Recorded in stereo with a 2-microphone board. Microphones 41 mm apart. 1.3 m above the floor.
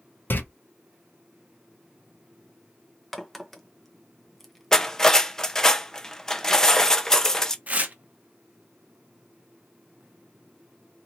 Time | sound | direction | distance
0.3 | a door slam | 55° left (ahead or behind) | 0.6 m
3.1 | a crack | centre (ahead or behind) | 0.7 m
4.7 | cutlery clinking | 10° left (ahead or behind) | 0.5 m
7.7 | tearing paper | 35° right (ahead or behind) | 0.7 m